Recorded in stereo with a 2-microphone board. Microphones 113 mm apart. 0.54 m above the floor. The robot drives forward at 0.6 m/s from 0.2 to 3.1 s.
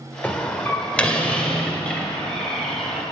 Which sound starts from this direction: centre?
A door slam, at 0.2 s.